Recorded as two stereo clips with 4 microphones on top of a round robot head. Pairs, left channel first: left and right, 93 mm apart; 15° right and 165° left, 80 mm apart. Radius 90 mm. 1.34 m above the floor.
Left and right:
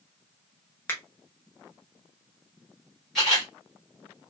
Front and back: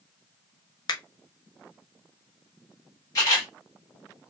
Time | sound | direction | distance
0.9 | a finger snap | 20° left | 0.5 m
3.1 | a camera shutter | straight ahead | 0.9 m